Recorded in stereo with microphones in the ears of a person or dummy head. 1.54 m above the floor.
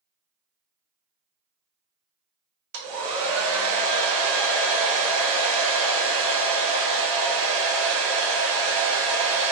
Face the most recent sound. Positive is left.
turn(degrees=-65)  # may be behind; listen again after turning